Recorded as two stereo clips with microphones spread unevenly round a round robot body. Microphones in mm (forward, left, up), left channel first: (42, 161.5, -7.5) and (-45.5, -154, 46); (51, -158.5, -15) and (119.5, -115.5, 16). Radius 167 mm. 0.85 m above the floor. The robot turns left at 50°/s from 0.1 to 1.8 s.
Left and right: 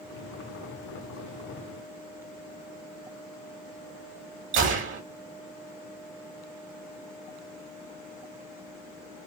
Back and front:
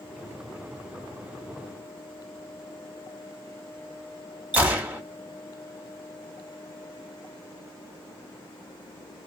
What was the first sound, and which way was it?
A gunshot, 65° right.